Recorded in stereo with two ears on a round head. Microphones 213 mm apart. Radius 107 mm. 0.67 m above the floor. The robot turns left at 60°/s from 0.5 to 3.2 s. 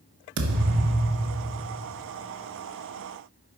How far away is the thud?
About 1.3 m.